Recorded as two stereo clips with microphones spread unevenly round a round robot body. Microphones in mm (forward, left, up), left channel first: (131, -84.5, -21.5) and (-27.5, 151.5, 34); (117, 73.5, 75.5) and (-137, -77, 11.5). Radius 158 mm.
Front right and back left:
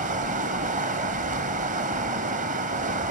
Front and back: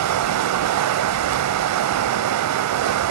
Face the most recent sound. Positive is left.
turn(degrees=-165)